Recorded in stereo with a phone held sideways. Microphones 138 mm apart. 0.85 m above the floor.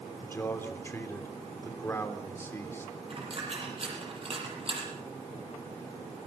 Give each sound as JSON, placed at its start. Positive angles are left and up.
{"t": 0.2, "sound": "a man speaking", "side_deg": 20, "distance_m": 3.0}
{"t": 3.1, "sound": "a dropped coin", "side_deg": -45, "distance_m": 7.5}